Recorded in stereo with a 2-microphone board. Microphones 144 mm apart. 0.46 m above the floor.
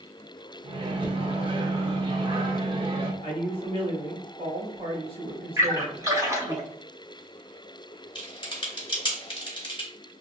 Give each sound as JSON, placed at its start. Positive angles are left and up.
{"t": 0.6, "sound": "a microwave", "side_deg": -40, "distance_m": 0.6}
{"t": 3.2, "sound": "a man speaking", "side_deg": -40, "distance_m": 1.3}
{"t": 5.6, "sound": "a splash", "side_deg": -20, "distance_m": 1.0}
{"t": 8.2, "sound": "typing on a keyboard", "side_deg": 35, "distance_m": 1.0}